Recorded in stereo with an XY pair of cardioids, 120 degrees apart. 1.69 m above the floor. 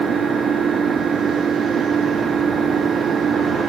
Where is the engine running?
40° right.